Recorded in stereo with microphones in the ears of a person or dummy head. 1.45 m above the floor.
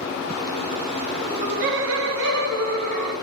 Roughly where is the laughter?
Centre.